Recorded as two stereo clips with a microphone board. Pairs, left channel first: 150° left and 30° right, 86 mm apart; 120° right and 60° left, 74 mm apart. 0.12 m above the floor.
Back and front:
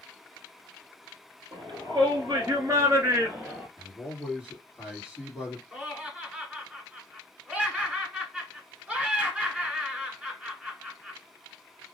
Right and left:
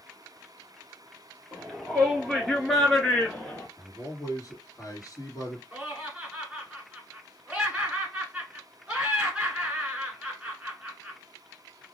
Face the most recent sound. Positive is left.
turn(degrees=15)